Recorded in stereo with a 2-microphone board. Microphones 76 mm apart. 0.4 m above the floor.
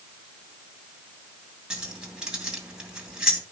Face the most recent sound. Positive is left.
turn(degrees=-10)  # may be behind; listen again after turning